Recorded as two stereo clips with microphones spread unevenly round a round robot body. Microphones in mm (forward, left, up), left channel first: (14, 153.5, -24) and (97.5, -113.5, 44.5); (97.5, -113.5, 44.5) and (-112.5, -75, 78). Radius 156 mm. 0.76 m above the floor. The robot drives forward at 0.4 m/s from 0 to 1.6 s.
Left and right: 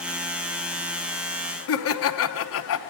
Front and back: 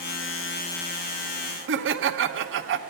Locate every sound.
1.7 s laughter: 135° left, 0.9 m